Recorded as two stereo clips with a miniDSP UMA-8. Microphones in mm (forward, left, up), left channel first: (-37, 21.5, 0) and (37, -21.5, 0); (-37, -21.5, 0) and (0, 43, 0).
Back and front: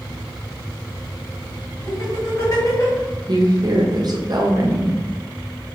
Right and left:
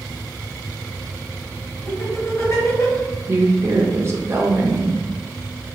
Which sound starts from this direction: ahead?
A woman speaking, at 3.3 s.